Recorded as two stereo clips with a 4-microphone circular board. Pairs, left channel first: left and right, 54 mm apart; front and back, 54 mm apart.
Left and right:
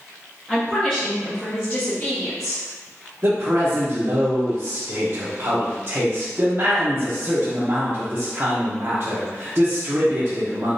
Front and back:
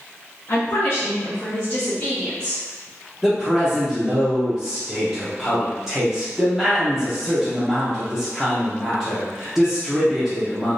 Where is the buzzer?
I don't hear a buzzer.